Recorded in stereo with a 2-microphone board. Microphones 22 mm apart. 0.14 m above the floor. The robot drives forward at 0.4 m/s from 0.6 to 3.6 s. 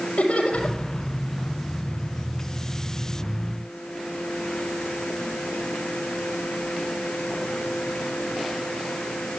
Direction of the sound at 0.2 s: 70° left (ahead or behind).